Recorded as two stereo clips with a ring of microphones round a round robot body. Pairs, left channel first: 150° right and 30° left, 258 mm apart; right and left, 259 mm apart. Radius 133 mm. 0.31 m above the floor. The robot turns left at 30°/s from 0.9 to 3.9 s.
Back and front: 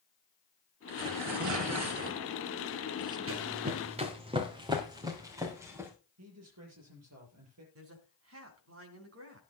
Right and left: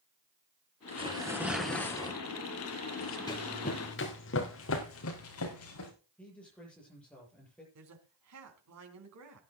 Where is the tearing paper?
20° left, 2.5 m; by 3.2 s 45° right, 2.5 m.